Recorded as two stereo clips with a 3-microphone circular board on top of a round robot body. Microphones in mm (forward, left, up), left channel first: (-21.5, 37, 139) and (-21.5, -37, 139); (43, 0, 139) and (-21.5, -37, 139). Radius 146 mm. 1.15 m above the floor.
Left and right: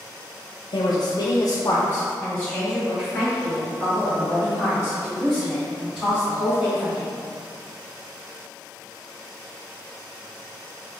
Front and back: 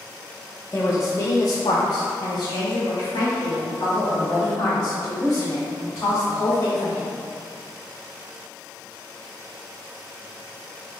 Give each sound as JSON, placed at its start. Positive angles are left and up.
{"t": 0.7, "sound": "a woman speaking", "azimuth_deg": 95, "distance_m": 0.7}